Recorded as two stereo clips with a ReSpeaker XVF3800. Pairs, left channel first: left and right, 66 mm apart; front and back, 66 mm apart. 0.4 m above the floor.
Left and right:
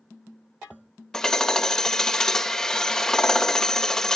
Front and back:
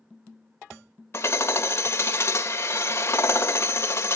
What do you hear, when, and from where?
1.1 s hammering: 15° left, 1.4 m